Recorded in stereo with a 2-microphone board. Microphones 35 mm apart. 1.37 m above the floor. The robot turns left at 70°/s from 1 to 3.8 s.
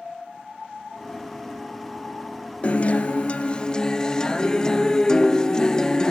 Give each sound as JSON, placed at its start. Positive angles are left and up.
{"t": 2.6, "sound": "a guitar", "azimuth_deg": 115, "distance_m": 0.5}